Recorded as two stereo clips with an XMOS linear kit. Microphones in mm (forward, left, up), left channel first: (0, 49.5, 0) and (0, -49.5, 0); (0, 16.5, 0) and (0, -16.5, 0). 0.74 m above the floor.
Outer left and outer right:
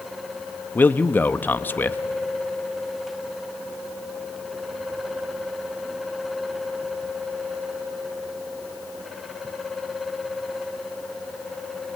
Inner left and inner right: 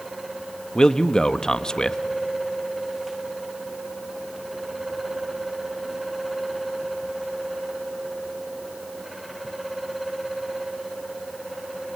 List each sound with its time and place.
0.8 s a man speaking: 20° left (ahead or behind), 0.7 m